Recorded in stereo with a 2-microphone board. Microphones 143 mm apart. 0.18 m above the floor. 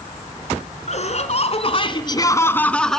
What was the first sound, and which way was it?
Laughter, 55° left (ahead or behind).